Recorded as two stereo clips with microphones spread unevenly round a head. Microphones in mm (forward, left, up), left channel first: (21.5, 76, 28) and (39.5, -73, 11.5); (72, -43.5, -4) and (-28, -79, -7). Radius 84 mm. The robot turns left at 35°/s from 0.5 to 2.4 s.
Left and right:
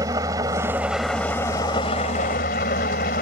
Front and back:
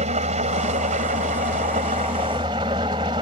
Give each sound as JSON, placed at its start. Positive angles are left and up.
{"t": 0.0, "sound": "an engine running", "azimuth_deg": -155}